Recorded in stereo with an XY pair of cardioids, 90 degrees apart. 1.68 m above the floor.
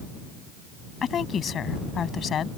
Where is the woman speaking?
60° left.